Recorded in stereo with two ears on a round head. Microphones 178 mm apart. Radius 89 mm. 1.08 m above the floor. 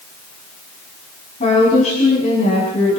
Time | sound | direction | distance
1.4 | a woman speaking | 35° left (ahead or behind) | 7.5 m